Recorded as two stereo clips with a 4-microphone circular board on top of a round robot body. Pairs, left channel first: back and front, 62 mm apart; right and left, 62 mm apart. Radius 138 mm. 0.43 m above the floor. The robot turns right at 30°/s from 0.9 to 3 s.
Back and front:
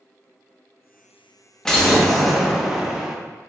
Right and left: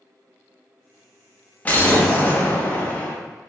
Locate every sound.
1.6 s an explosion: 110° right, 1.0 m; by 3.1 s 70° right, 1.0 m